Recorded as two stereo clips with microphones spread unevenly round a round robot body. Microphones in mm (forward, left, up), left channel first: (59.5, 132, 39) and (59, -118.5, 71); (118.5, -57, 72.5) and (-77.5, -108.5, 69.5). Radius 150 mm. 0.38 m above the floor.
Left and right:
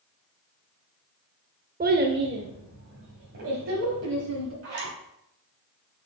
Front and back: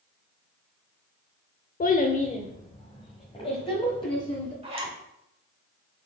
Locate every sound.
1.8 s a child speaking: 30° right, 0.7 m; by 4.5 s 55° right, 2 m
4.6 s a zipper: 110° right, 2.5 m